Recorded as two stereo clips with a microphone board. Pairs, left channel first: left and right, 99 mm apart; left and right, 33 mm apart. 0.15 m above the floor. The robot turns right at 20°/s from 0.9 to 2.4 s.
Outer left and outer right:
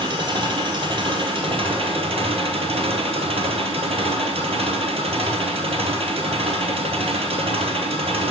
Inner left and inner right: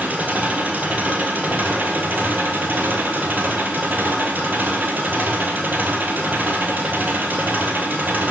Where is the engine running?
125° right, 1.1 m; by 8.3 s 95° right, 1.1 m.